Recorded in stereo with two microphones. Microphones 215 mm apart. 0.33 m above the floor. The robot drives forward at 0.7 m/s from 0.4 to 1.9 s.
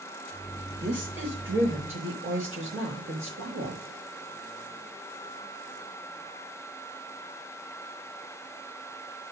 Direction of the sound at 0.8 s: 60° right (ahead or behind).